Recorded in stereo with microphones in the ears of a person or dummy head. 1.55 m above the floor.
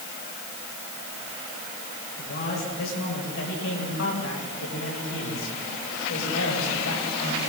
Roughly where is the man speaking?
Left.